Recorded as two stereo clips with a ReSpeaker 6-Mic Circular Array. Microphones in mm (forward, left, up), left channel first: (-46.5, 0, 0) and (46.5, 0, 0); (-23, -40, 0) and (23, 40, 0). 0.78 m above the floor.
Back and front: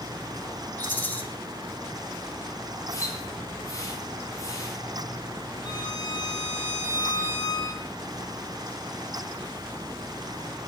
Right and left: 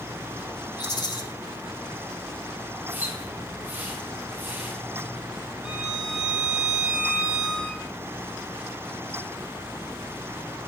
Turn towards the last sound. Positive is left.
turn(degrees=140)